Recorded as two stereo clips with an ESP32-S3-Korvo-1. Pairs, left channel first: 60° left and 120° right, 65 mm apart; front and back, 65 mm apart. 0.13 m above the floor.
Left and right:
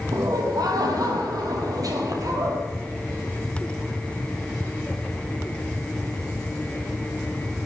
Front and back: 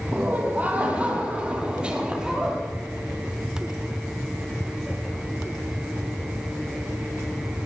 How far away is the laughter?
About 4.5 m.